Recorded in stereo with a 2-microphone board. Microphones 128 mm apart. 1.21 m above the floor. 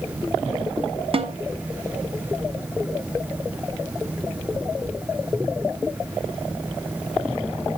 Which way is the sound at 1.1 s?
45° right (ahead or behind).